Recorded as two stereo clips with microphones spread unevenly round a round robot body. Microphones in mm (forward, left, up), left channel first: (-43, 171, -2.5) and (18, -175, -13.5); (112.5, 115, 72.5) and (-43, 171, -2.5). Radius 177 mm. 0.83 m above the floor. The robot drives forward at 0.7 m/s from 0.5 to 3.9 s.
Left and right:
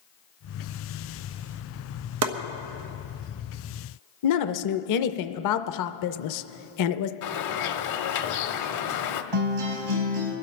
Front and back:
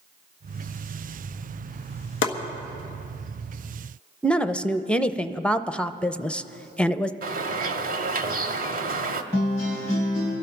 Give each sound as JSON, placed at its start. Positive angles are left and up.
{"t": 2.2, "sound": "chopping", "azimuth_deg": -40, "distance_m": 1.0}
{"t": 4.2, "sound": "a woman speaking", "azimuth_deg": 90, "distance_m": 0.6}
{"t": 7.2, "sound": "a bird", "azimuth_deg": 110, "distance_m": 0.8}
{"t": 9.3, "sound": "a guitar", "azimuth_deg": -115, "distance_m": 4.0}